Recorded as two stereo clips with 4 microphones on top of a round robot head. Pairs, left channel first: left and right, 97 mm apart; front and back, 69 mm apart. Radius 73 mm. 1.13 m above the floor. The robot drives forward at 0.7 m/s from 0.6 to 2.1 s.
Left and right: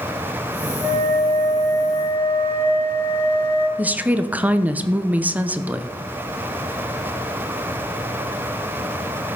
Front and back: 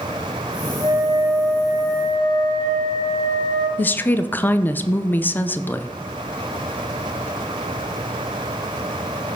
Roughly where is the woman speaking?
Ahead right.